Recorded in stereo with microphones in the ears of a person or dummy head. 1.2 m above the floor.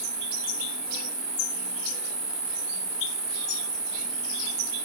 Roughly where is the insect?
Centre.